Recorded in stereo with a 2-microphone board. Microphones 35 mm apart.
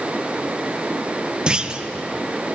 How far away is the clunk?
About 0.8 m.